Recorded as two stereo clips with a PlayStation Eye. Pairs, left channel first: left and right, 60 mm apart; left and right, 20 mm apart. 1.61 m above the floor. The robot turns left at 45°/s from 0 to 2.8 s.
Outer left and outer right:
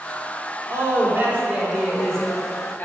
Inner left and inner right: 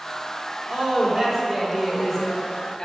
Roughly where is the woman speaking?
Behind right.